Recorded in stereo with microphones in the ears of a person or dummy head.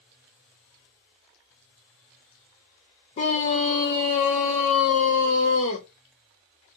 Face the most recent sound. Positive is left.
turn(degrees=30)  # may be behind; listen again after turning